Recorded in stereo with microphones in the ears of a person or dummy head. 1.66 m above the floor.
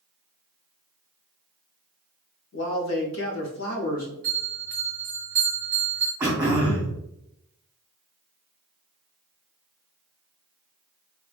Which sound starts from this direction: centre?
Throat clearing, at 6.2 s.